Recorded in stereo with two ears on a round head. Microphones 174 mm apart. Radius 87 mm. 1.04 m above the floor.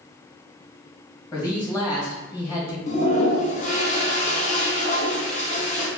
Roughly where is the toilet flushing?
Left.